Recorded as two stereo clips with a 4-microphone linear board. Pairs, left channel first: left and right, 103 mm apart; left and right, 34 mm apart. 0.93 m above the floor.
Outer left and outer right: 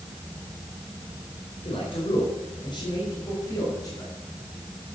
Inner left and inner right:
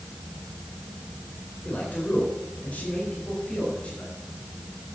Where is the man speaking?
60° left (ahead or behind), 4 m; by 4.1 s 35° left (ahead or behind), 5.5 m.